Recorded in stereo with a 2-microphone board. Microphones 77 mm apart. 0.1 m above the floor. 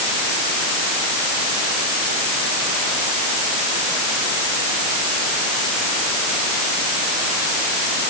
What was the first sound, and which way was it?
Only background noise.